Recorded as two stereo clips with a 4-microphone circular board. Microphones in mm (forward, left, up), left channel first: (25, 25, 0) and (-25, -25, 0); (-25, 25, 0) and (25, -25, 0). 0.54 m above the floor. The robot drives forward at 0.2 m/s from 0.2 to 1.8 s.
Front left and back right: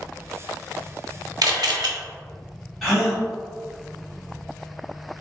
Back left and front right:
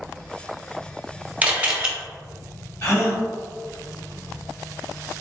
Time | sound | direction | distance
1.4 | a camera shutter | 115° right | 0.6 m
2.8 | a gasp | 130° left | 1.5 m